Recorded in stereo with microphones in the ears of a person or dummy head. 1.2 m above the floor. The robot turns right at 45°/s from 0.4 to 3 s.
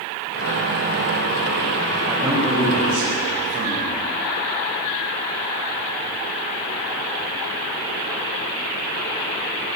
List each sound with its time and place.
2.1 s a man speaking: 175° right, 7 m; by 4.0 s 130° right, 7 m